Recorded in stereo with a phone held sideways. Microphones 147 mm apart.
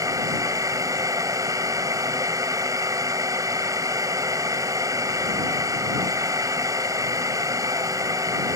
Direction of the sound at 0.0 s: 25° right (ahead or behind).